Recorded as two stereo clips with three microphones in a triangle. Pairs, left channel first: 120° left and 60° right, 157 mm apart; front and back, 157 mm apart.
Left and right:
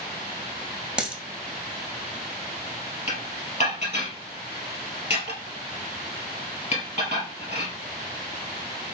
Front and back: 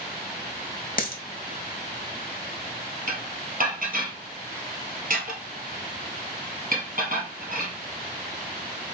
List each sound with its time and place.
1.0 s a dropped coin: 25° left, 1.0 m
3.1 s dishes clattering: 160° left, 1.7 m